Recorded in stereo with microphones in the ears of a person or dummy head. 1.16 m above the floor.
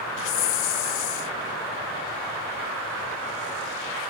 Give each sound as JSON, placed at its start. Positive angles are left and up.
{"t": 0.2, "sound": "a hiss", "side_deg": 70}